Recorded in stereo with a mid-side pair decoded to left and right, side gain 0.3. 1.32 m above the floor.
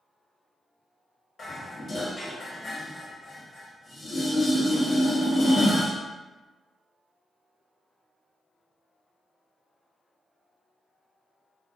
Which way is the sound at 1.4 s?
65° left.